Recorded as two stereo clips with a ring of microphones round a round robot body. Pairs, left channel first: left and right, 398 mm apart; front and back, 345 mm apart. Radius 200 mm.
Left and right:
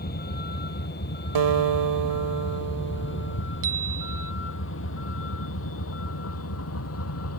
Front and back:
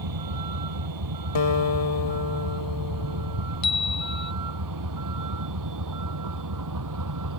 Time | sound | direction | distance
0.0 | a vehicle | 160° left | ?
1.4 | a guitar | 50° right | ?
3.6 | a chime | 25° right | ?